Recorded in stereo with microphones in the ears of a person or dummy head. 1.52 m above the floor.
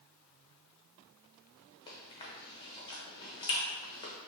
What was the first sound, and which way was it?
Chewing, 20° left (ahead or behind).